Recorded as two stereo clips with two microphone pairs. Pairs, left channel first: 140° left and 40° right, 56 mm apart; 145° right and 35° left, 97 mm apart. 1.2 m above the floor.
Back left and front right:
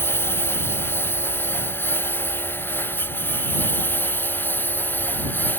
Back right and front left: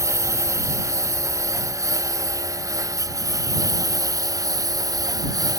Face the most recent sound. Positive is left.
turn(degrees=90)